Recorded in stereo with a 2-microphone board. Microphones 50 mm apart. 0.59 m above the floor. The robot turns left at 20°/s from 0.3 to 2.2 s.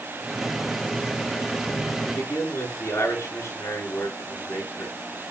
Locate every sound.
2.1 s a man speaking: 80° left, 9 m